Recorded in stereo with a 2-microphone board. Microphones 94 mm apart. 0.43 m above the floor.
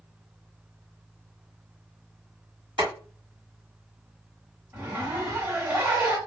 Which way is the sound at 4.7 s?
25° right (ahead or behind).